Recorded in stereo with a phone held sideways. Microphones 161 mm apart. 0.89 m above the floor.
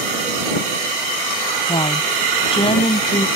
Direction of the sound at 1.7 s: 35° left (ahead or behind).